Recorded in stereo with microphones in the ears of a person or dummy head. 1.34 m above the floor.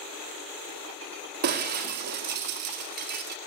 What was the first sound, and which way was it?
Breaking glass, 50° right (ahead or behind).